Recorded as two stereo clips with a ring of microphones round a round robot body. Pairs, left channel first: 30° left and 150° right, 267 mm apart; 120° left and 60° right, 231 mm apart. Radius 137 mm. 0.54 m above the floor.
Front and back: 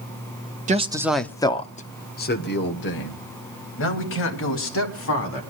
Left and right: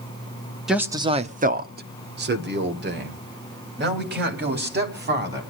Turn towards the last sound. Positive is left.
turn(degrees=-15)